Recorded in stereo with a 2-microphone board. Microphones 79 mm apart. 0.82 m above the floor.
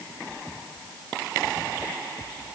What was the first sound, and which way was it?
Only background noise.